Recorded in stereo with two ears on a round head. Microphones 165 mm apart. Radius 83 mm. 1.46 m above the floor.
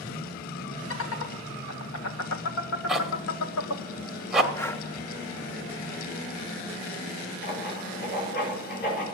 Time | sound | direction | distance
0.9 | laughter | 80° left | 1.9 m
2.9 | a zipper | centre (ahead or behind) | 1.5 m
4.5 | breathing | 15° left (ahead or behind) | 0.7 m
7.4 | writing | 55° left (ahead or behind) | 6 m